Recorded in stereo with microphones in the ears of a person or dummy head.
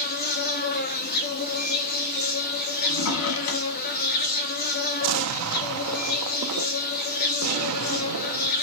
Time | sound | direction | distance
0.0 | an insect | 45° left (ahead or behind) | 1.1 m
2.8 | a drawer | 75° left (ahead or behind) | 1.4 m
5.0 | an explosion | 75° right (ahead or behind) | 0.7 m